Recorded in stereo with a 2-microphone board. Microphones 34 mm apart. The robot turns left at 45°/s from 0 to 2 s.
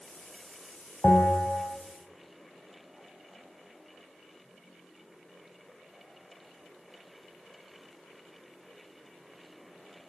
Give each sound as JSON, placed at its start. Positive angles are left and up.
{"t": 1.0, "sound": "a bell", "azimuth_deg": 45, "distance_m": 2.5}